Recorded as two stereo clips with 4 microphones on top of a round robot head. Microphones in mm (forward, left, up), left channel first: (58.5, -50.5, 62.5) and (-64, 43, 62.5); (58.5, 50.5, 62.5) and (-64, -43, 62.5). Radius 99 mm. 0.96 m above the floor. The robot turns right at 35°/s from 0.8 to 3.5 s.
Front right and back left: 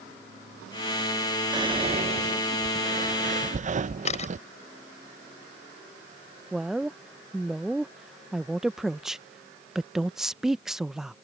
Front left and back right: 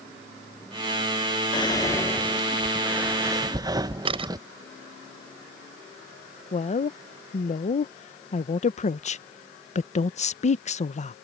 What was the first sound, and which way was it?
Whispering, 90° left.